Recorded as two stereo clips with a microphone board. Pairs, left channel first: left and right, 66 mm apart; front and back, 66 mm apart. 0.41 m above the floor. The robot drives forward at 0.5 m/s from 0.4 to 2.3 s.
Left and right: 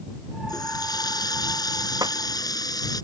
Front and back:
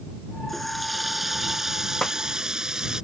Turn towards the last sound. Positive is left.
turn(degrees=-80)